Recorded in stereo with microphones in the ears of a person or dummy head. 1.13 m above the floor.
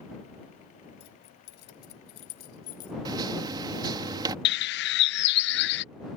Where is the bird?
55° left (ahead or behind).